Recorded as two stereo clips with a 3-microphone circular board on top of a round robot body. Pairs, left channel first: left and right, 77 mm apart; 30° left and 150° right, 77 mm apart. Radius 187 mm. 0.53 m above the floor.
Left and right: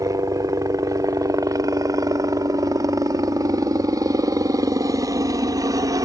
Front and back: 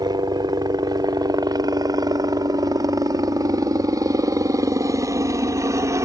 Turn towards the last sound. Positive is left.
turn(degrees=-110)